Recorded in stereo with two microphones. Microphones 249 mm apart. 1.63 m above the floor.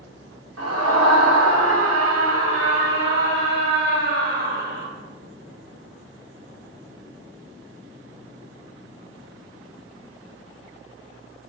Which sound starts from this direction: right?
A scream, at 0.6 s.